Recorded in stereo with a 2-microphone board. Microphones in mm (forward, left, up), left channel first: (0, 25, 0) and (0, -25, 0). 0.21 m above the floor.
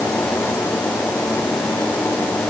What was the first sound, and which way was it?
Only background noise.